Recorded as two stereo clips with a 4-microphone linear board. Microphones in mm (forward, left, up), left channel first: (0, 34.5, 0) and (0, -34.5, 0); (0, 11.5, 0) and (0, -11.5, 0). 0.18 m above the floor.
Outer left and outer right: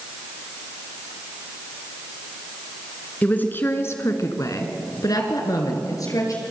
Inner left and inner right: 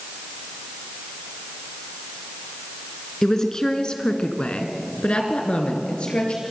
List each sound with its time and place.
3.2 s a woman speaking: 20° left (ahead or behind), 2.5 m; by 6.4 s 50° left (ahead or behind), 3.5 m